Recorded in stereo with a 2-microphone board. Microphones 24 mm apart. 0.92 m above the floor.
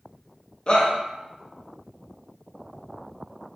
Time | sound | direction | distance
0.7 | a shout | 30° left (ahead or behind) | 0.6 m